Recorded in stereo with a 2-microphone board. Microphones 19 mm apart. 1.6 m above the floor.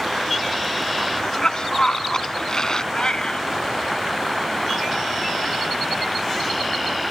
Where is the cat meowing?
45° left (ahead or behind).